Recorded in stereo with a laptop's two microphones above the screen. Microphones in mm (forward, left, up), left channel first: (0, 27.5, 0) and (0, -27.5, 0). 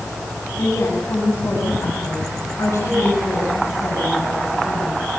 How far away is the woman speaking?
About 8 m.